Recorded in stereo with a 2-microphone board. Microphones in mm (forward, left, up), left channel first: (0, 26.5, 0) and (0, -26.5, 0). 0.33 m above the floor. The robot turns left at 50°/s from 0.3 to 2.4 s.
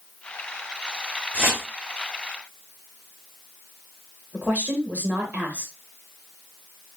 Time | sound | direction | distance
1.3 | a whoosh | 20° right (ahead or behind) | 1.5 m
4.3 | a woman speaking | 30° right (ahead or behind) | 1.0 m